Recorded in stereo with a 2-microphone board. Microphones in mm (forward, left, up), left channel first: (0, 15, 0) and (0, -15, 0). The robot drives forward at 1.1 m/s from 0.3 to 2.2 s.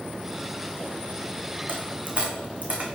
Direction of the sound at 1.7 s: 75° right (ahead or behind).